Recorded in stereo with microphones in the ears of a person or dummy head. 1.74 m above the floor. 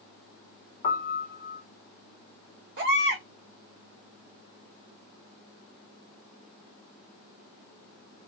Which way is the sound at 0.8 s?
40° left (ahead or behind).